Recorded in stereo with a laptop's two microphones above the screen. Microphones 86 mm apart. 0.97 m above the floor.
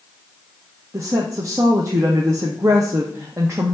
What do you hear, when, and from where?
0.9 s a woman speaking: 35° right (ahead or behind), 0.6 m